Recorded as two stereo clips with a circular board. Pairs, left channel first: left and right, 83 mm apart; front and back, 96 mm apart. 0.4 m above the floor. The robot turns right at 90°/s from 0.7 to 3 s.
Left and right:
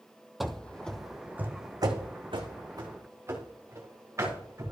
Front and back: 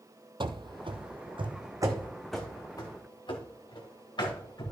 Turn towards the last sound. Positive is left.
turn(degrees=-40)